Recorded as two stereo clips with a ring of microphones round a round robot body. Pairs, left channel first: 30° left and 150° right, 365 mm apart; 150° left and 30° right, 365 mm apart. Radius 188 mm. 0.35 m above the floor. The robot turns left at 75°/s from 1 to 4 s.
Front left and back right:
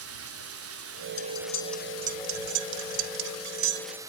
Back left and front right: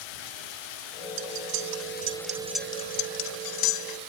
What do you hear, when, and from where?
0.0 s running water: 155° left; by 4.1 s 70° right
1.2 s cutlery clinking: 15° right; by 4.0 s 135° left